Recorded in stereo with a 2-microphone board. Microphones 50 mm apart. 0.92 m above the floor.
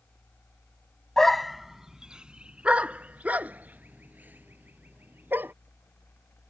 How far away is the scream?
No scream in this recording.